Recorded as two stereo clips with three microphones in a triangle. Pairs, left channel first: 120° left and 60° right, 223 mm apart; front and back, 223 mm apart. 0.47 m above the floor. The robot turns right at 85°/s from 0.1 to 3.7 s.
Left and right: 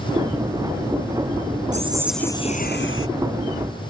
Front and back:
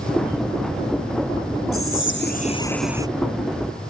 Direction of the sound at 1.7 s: 5° right.